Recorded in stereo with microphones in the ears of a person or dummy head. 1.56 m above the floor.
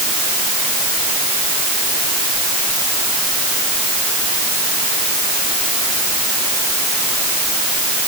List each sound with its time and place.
Only background noise.